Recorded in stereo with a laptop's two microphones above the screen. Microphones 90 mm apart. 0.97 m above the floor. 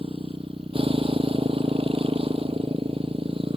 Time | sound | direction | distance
0.0 | a motorcycle | 80° right | ?